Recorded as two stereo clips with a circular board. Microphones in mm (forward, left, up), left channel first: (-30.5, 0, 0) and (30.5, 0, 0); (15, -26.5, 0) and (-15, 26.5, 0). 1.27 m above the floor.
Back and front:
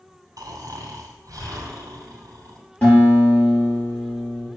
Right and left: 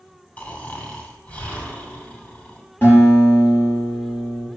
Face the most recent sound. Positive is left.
turn(degrees=-115)